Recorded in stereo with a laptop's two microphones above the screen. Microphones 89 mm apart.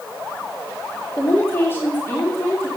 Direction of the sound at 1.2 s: 25° left (ahead or behind).